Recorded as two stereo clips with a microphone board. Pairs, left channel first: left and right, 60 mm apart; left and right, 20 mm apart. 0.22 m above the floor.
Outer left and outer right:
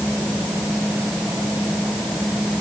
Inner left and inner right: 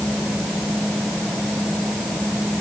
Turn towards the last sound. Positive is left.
No sound to turn to.